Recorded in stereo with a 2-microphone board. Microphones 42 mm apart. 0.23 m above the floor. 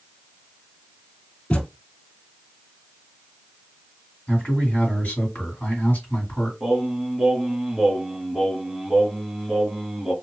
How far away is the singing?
About 1.0 m.